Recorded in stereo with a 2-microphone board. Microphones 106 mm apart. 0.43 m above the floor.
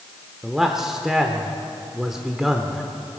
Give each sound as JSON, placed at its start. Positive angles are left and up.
{"t": 0.4, "sound": "a man speaking", "side_deg": -5, "distance_m": 0.8}